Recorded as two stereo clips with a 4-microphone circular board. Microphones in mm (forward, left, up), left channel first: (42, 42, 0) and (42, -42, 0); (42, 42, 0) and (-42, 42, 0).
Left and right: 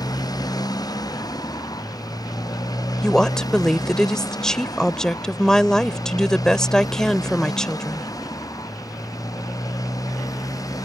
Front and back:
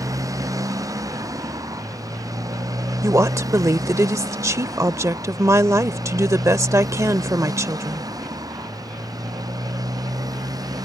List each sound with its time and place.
0.0 s a motorcycle: 130° left; by 10.9 s 135° left
3.0 s a woman speaking: 165° left